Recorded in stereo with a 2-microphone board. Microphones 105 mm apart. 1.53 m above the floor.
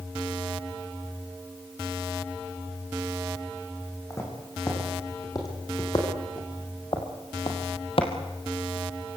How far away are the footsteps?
About 7.5 m.